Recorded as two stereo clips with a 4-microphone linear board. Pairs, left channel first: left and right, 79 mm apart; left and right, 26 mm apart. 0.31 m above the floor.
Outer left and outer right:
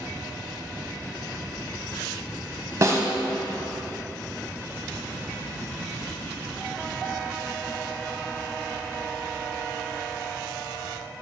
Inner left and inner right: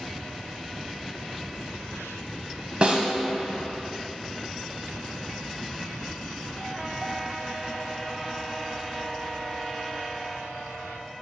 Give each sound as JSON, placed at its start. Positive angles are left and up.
{"t": 2.8, "sound": "a snare drum", "side_deg": -40, "distance_m": 0.8}